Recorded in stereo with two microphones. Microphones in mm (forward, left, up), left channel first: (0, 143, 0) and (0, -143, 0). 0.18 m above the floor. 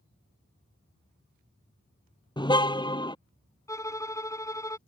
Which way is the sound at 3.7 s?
10° left (ahead or behind).